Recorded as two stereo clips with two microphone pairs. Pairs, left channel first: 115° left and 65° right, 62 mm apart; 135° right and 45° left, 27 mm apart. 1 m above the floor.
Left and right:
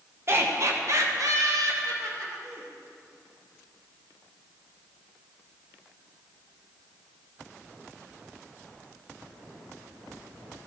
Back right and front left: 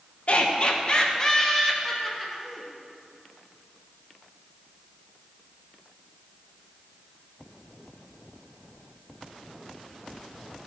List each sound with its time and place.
0.3 s laughter: 105° right, 1.0 m; by 2.7 s 40° right, 1.5 m